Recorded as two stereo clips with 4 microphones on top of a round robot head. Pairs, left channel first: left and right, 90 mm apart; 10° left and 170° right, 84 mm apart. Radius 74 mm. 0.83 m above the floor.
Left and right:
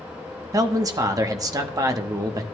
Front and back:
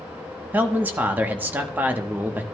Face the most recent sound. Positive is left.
turn(degrees=-115)